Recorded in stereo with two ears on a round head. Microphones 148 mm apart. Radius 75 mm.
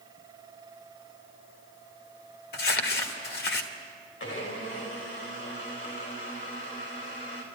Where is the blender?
75° left (ahead or behind), 4.5 m.